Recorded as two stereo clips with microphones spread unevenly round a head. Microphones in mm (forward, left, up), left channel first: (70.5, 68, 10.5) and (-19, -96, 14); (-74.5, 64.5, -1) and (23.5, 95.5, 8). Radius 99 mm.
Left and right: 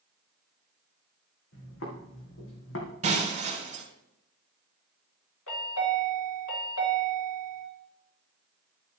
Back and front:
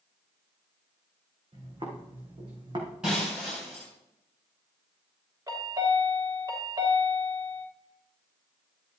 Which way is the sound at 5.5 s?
70° left.